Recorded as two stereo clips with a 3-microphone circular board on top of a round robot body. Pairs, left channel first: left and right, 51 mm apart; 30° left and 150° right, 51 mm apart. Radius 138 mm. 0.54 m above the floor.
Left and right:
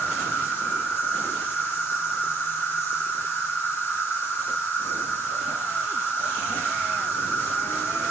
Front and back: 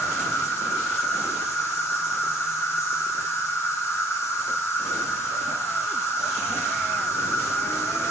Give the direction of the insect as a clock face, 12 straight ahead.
11 o'clock.